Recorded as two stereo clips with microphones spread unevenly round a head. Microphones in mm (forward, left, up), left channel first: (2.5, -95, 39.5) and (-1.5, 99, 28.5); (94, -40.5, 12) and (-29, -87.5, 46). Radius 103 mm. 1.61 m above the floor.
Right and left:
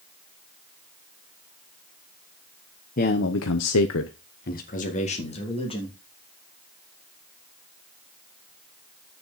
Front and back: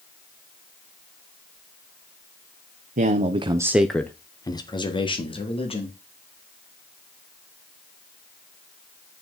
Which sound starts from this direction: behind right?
A man speaking, at 3.0 s.